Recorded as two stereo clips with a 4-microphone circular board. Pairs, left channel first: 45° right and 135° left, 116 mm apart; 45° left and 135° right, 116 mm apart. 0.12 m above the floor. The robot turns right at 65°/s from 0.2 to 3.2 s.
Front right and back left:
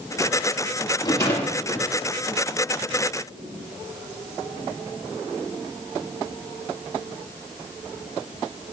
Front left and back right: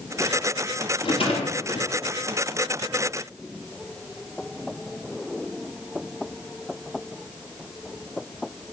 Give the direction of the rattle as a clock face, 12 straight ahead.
12 o'clock.